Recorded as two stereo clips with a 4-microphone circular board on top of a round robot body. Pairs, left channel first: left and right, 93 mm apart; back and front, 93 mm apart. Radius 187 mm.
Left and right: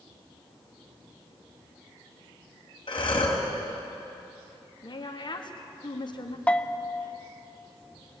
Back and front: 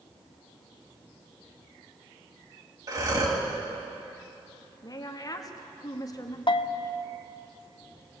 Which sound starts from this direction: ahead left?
Breathing, at 2.9 s.